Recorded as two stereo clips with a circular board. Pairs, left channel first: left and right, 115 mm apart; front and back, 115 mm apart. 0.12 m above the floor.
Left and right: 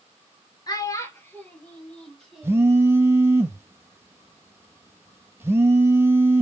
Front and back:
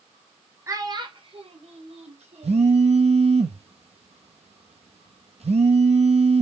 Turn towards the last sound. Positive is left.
turn(degrees=-160)